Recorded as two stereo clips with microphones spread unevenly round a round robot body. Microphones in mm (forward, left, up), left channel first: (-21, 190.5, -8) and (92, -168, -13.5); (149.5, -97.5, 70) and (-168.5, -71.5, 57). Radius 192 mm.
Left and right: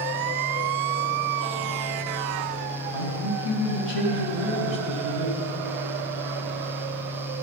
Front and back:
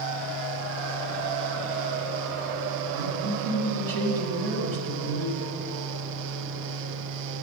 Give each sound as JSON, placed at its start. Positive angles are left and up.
{"t": 2.9, "sound": "a man speaking", "azimuth_deg": 165, "distance_m": 4.0}